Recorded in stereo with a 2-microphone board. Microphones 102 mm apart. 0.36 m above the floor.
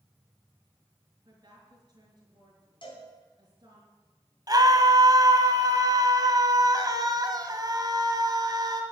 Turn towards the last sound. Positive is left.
turn(degrees=-40)  # may be behind; listen again after turning